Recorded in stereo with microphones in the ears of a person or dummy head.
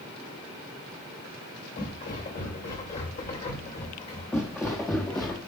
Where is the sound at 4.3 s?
5° left (ahead or behind), 2.5 m; by 5.4 s 10° left (ahead or behind), 1.9 m.